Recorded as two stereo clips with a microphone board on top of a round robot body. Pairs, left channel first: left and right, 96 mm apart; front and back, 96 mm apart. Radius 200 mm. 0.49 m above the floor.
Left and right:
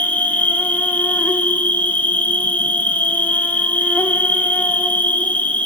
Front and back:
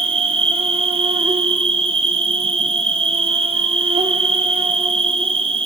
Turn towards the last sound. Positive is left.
turn(degrees=165)